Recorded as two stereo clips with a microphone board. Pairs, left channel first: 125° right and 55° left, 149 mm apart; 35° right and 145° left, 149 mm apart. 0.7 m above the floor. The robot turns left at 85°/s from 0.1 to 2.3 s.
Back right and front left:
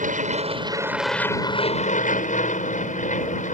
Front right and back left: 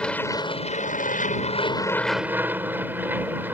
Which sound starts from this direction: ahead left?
An aircraft, at 0.0 s.